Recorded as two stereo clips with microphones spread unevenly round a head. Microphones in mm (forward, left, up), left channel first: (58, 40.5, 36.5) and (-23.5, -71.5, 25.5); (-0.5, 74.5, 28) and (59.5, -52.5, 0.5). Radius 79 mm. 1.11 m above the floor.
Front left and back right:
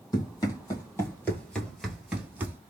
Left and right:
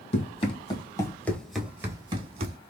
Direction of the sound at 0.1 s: 115° left.